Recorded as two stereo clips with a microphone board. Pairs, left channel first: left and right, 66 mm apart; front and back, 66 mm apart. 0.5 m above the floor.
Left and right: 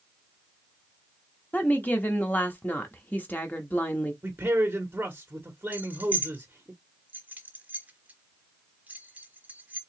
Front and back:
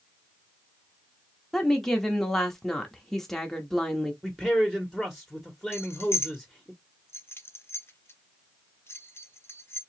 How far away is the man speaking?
About 1.2 m.